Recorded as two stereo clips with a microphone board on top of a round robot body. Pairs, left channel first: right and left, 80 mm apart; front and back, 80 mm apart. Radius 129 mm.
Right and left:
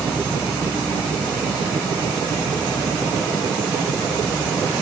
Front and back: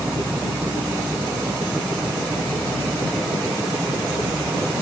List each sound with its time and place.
Only background noise.